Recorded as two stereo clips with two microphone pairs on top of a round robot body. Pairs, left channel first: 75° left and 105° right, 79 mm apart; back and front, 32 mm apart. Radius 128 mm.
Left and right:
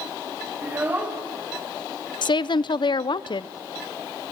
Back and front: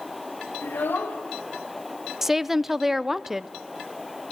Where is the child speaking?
170° right, 2 m.